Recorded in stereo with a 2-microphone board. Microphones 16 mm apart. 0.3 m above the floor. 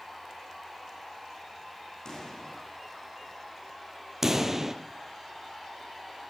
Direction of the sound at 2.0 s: 45° left (ahead or behind).